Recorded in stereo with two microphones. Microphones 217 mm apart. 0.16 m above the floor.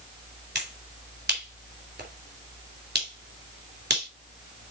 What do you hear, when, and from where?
0.6 s a finger snap: 55° right (ahead or behind), 3 m